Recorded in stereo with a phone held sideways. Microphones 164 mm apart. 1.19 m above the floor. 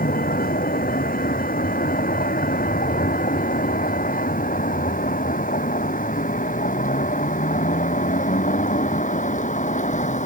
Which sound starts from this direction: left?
A vehicle, at 0.0 s.